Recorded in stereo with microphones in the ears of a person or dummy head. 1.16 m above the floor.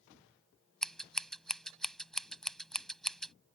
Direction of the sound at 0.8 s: 5° left (ahead or behind).